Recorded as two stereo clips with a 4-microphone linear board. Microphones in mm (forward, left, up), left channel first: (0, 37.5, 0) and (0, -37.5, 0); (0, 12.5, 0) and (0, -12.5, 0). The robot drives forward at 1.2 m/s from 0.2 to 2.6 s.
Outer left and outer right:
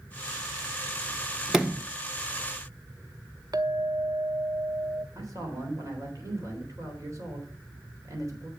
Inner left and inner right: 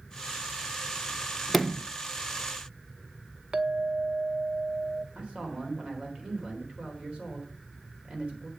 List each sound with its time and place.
1.5 s a sliding door: 10° right (ahead or behind), 1.0 m; by 1.9 s 15° right (ahead or behind), 0.6 m
3.5 s a clink: 55° right (ahead or behind), 0.7 m
5.2 s a man speaking: 45° right (ahead or behind), 3.5 m